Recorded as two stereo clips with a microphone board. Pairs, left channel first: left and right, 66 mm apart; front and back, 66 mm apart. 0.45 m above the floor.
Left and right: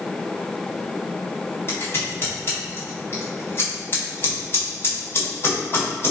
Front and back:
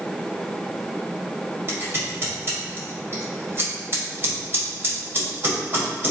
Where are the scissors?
135° left, 1.9 m.